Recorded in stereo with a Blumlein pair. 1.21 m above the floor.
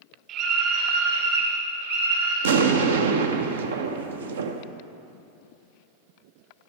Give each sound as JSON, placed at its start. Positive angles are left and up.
{"t": 0.3, "sound": "a scream", "azimuth_deg": -35, "distance_m": 3.5}
{"t": 2.4, "sound": "an explosion", "azimuth_deg": -60, "distance_m": 0.7}